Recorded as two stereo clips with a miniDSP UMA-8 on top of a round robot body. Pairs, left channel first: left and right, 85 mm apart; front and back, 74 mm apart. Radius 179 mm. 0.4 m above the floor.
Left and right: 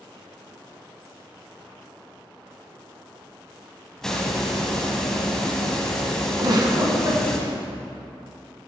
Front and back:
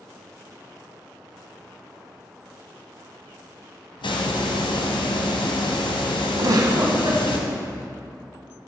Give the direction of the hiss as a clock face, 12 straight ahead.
12 o'clock.